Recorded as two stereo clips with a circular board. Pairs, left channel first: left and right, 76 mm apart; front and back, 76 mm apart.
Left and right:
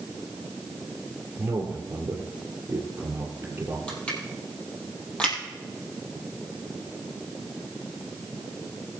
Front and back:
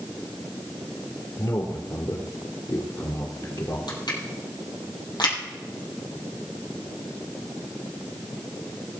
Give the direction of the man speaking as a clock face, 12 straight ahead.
1 o'clock.